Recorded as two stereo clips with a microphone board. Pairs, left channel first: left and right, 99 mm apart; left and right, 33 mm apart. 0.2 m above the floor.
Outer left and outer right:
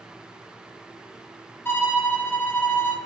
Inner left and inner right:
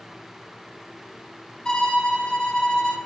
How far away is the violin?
About 1.4 m.